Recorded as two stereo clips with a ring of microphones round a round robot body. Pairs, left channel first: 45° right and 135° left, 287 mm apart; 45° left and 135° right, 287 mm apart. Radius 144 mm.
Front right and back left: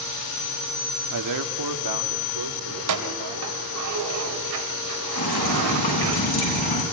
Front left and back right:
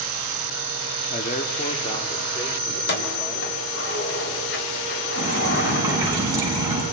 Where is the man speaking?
105° left, 1.4 m; by 3.5 s 130° left, 2.5 m.